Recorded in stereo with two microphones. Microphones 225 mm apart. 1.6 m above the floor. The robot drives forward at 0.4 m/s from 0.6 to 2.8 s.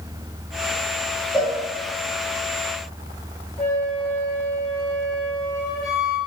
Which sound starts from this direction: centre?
A cowbell, at 1.3 s.